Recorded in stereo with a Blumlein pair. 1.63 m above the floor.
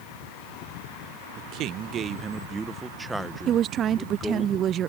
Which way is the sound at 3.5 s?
30° right.